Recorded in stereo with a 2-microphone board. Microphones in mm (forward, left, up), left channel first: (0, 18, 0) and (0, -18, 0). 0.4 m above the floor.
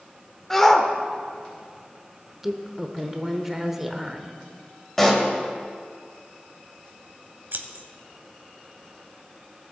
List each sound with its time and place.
0.5 s a shout: 10° left (ahead or behind), 0.8 m
2.4 s a woman speaking: 10° right (ahead or behind), 0.9 m
5.0 s a pop: 5° left (ahead or behind), 1.4 m
7.5 s scissors: 75° right (ahead or behind), 0.9 m